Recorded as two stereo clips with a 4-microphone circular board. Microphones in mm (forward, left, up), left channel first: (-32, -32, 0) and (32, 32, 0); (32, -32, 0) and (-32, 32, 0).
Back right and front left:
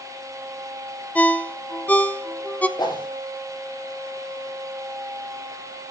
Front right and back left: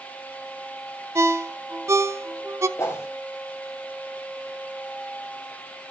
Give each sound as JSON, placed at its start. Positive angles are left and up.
{"t": 1.1, "sound": "a ringtone", "azimuth_deg": 165, "distance_m": 0.7}
{"t": 2.8, "sound": "a whoosh", "azimuth_deg": -100, "distance_m": 3.5}